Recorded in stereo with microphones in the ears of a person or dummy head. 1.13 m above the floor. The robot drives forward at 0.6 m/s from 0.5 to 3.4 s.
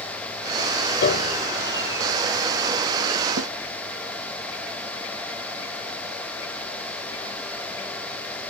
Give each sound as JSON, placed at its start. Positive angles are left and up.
{"t": 1.0, "sound": "a piano", "side_deg": 55}
{"t": 3.4, "sound": "a snare drum", "side_deg": -90}